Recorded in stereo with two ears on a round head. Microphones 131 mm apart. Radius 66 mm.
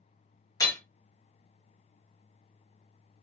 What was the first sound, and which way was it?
Hammering, 25° left (ahead or behind).